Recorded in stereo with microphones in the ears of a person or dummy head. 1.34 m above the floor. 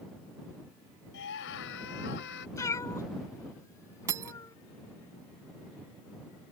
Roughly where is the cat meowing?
Centre.